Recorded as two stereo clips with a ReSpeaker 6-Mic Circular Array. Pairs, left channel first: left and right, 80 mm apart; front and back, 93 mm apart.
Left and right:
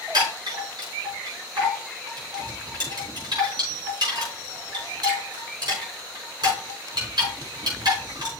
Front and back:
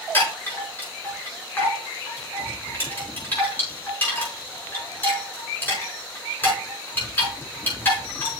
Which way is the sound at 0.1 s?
70° right.